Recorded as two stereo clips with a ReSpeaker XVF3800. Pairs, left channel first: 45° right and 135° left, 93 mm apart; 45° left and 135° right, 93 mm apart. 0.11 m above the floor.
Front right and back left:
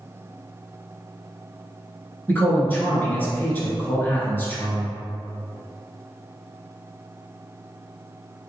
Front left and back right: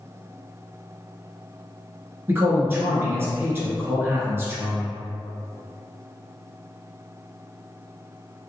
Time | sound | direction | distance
2.3 | a man speaking | 95° right | 1.3 m